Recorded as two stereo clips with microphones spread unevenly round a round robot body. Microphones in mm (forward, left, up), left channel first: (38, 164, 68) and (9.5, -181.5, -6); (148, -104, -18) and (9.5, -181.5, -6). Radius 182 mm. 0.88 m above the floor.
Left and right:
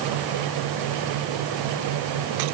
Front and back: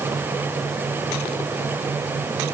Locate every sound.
Only background noise.